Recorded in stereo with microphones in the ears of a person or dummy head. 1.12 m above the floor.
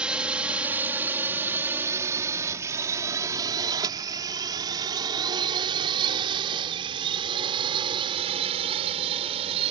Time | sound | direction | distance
0.0 | a drone | 5° right (ahead or behind) | ?